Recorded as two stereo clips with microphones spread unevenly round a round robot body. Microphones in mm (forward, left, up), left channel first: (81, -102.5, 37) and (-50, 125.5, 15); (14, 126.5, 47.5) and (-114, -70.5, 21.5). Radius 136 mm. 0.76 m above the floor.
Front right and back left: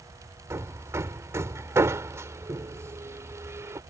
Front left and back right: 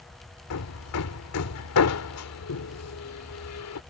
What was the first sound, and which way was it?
Hammering, 40° left.